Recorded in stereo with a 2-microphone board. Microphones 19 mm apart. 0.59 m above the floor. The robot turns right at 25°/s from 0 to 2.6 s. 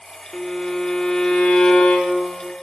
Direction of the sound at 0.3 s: 20° left.